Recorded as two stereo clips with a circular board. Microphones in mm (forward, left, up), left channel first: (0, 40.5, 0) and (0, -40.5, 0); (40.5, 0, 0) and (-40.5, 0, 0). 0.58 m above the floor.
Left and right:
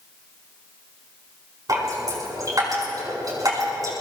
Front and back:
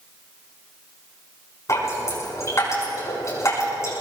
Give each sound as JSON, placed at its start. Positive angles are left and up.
{"t": 1.7, "sound": "dripping", "azimuth_deg": -50, "distance_m": 6.5}